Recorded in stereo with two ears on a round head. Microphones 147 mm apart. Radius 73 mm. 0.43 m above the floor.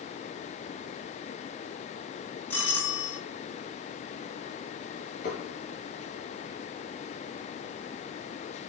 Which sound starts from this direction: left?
Dishes clattering, at 5.2 s.